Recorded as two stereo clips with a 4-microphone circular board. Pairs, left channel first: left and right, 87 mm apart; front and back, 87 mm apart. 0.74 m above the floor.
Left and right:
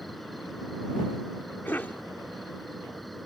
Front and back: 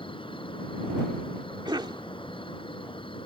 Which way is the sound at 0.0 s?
Straight ahead.